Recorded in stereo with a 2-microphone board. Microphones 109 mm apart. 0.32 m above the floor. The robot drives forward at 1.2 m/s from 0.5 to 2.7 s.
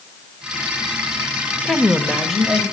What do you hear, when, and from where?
1.6 s a woman speaking: 5° left (ahead or behind), 0.8 m; by 2.6 s centre (ahead or behind), 1.2 m